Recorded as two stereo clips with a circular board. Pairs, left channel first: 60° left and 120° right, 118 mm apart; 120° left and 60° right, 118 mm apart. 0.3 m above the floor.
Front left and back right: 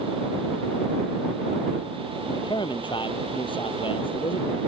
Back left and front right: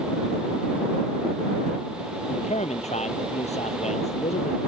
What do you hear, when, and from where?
2.3 s a man speaking: 110° left; by 4.6 s 100° left